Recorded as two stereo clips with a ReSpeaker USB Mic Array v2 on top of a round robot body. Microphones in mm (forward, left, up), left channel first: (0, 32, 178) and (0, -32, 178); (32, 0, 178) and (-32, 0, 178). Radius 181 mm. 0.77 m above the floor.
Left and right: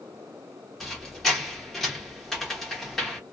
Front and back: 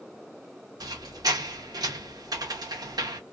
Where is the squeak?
175° left, 0.8 m.